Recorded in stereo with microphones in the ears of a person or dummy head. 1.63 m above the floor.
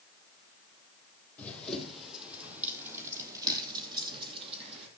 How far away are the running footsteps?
About 3.5 m.